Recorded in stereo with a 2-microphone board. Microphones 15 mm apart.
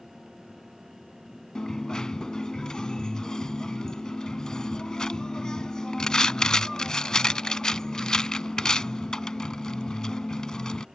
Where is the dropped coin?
50° left (ahead or behind).